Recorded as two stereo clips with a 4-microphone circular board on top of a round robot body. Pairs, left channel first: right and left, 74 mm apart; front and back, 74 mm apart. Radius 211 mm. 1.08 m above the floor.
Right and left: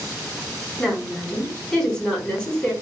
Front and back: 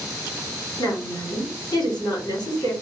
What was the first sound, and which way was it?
A woman speaking, 15° right.